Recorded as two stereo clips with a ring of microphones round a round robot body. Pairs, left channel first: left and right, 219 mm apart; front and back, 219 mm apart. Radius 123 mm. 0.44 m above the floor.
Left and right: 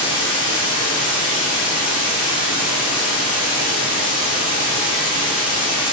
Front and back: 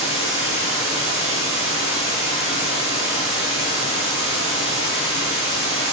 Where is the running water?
65° left, 2.5 m.